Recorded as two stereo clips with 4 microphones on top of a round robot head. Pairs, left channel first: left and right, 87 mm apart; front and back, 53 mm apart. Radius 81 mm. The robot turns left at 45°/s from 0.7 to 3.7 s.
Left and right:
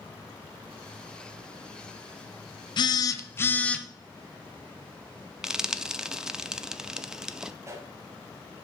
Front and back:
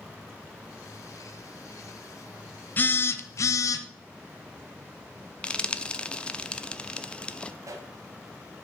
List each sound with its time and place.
2.8 s a phone buzzing: 55° left, 0.8 m; by 3.8 s 15° left, 0.8 m
5.4 s frying: 20° right, 0.7 m
7.6 s a pop: 150° right, 1.1 m